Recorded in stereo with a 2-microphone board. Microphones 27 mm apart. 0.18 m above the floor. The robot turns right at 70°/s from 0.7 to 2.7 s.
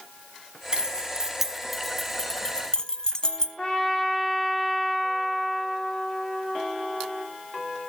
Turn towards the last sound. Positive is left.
turn(degrees=35)  # may be behind; listen again after turning